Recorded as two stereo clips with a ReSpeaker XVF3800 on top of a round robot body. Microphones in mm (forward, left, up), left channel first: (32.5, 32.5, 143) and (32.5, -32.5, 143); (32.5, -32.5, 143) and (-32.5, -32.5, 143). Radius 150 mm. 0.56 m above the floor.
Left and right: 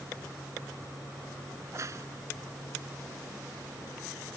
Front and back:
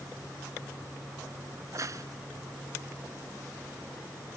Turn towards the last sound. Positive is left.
turn(degrees=-140)